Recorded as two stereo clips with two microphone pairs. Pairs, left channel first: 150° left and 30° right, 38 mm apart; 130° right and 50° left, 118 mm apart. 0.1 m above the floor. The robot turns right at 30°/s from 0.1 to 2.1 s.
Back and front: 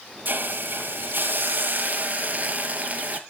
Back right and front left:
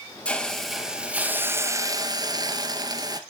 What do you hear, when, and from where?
0.2 s a hiss: 50° right, 1.1 m; by 3.2 s 5° left, 1.1 m